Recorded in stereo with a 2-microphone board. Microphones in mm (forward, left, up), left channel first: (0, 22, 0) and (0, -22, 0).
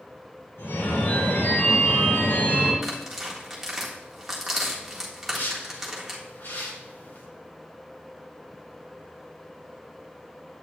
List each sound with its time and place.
0.6 s a phone ringing: 75° left (ahead or behind), 3.5 m
2.8 s tearing paper: 10° right (ahead or behind), 1.6 m
5.3 s a whoosh: 70° left (ahead or behind), 1.7 m